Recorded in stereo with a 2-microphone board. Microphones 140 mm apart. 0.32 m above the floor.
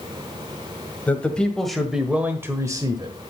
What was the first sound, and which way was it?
A man speaking, 10° left (ahead or behind).